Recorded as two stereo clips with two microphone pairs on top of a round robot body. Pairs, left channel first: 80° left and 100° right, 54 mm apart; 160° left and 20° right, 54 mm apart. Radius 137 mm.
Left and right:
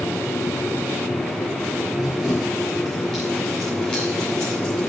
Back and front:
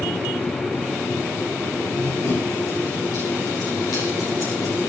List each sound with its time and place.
1.9 s running footsteps: 170° left, 9.5 m; by 4.9 s 145° left, 8.5 m